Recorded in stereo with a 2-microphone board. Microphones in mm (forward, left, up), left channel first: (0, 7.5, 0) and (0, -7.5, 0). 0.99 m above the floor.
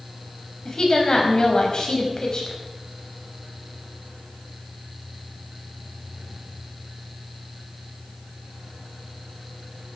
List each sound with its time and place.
0.7 s a woman speaking: 50° left (ahead or behind), 5.5 m